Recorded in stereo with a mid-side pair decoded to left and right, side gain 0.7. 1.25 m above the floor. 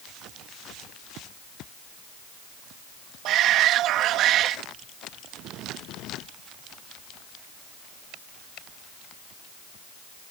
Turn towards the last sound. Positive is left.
turn(degrees=-55)